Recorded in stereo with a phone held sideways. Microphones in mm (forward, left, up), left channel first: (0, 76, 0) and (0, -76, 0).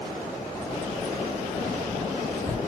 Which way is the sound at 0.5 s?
20° left (ahead or behind).